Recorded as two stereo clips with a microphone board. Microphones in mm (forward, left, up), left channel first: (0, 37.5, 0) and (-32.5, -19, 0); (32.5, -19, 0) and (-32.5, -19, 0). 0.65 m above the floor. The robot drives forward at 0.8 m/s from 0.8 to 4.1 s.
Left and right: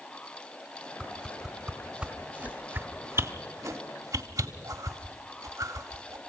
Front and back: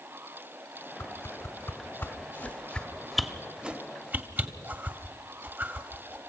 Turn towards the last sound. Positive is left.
turn(degrees=-125)